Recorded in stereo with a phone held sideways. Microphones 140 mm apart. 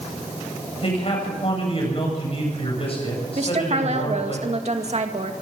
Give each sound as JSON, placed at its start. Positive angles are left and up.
{"t": 0.8, "sound": "a man speaking", "side_deg": 45, "distance_m": 8.5}
{"t": 3.4, "sound": "a woman speaking", "side_deg": -50, "distance_m": 2.0}